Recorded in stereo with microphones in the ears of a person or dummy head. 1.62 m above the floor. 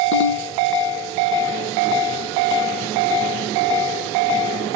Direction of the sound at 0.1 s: 70° left (ahead or behind).